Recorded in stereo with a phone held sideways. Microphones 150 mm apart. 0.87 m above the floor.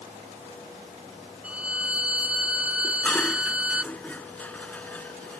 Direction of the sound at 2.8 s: 10° left (ahead or behind).